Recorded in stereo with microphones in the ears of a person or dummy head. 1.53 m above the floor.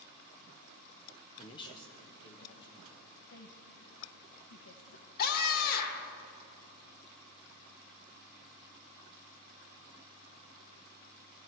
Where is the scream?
50° left (ahead or behind), 1.2 m.